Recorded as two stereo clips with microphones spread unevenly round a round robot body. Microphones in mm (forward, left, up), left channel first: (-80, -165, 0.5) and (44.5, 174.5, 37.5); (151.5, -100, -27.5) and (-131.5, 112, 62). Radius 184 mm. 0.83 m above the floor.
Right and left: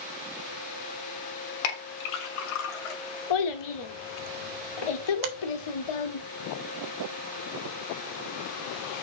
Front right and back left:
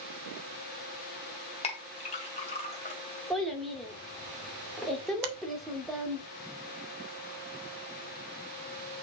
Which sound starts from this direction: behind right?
A child speaking, at 3.3 s.